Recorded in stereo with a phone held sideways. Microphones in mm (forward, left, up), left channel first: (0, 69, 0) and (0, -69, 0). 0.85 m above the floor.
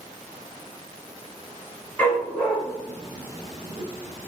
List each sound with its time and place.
2.0 s a dog barking: 10° left (ahead or behind), 1.9 m; by 4.3 s 30° right (ahead or behind), 1.4 m